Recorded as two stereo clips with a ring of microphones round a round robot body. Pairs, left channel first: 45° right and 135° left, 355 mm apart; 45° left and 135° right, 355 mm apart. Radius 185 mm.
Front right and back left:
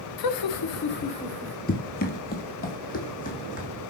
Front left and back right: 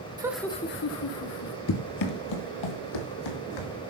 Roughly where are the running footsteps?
Ahead.